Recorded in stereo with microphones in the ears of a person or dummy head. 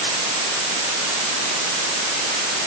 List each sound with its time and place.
Only background noise.